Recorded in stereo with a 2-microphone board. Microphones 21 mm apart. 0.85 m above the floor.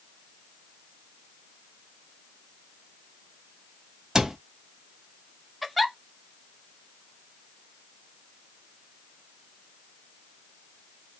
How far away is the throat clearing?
I don't hear throat clearing.